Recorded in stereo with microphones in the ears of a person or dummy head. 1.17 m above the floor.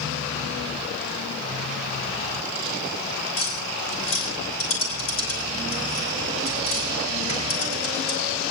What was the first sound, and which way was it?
Tapping, 40° left (ahead or behind).